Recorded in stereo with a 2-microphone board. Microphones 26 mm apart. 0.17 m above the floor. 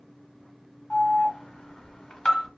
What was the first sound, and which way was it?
An alarm, 30° left (ahead or behind).